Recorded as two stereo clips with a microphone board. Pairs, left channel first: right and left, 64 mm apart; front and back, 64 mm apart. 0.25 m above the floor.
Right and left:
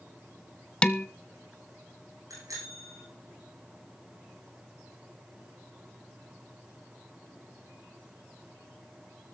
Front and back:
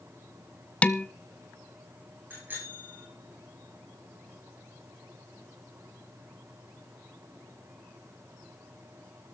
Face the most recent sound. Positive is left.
turn(degrees=120)